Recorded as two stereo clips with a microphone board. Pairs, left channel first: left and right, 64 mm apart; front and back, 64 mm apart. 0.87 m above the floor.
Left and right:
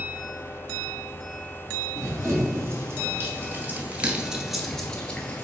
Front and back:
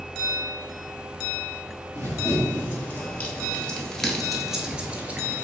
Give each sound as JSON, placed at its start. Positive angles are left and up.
{"t": 1.9, "sound": "running footsteps", "azimuth_deg": -50, "distance_m": 1.7}